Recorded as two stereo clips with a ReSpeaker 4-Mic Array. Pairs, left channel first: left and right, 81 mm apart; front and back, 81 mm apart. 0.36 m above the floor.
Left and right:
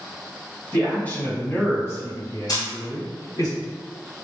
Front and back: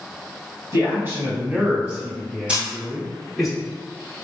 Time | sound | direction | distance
0.7 | a man speaking | 150° left | 1.9 m
2.5 | a camera shutter | 110° left | 2.0 m